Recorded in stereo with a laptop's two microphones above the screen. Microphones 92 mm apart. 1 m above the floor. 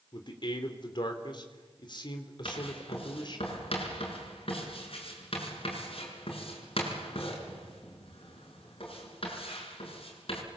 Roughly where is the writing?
Left.